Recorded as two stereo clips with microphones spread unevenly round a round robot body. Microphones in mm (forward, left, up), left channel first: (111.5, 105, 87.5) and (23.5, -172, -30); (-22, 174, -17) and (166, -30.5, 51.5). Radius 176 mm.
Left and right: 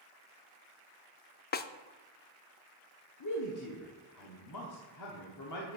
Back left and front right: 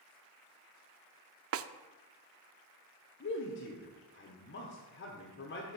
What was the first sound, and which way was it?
A snare drum, straight ahead.